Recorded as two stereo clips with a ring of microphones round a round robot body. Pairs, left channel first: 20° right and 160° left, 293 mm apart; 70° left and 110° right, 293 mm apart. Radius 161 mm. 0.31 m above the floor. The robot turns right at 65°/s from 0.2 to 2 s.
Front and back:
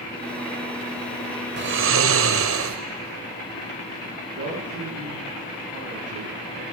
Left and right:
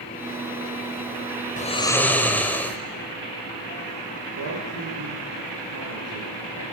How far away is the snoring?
About 2 m.